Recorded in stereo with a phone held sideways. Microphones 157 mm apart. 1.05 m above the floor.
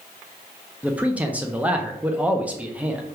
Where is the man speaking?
10° right (ahead or behind), 0.6 m.